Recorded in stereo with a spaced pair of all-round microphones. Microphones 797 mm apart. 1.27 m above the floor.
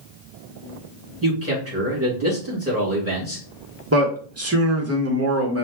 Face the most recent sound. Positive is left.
turn(degrees=-20)  # may be behind; listen again after turning